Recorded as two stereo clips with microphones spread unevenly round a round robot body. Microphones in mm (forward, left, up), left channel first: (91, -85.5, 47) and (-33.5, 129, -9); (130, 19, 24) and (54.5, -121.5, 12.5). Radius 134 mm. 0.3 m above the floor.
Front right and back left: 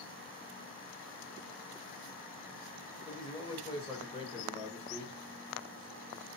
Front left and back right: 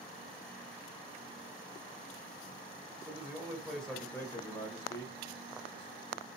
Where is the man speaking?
145° right, 1.2 m; by 6.3 s 10° left, 2 m.